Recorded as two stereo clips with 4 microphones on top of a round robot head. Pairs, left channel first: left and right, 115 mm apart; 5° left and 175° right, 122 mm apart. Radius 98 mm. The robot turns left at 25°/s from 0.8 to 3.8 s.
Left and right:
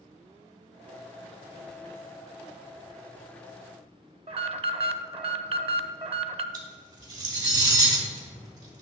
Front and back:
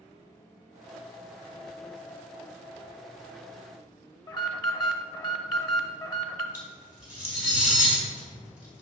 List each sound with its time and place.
4.3 s an alarm: 55° right, 0.5 m
6.5 s cutlery clinking: 100° right, 1.6 m